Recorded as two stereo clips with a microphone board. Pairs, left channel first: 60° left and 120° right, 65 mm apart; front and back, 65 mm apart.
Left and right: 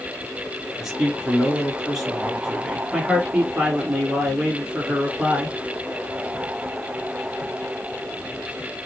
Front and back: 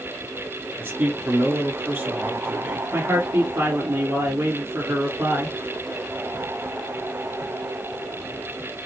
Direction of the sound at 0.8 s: 155° left.